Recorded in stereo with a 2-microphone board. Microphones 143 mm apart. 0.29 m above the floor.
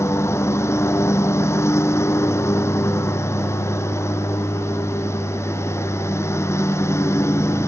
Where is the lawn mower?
20° left (ahead or behind).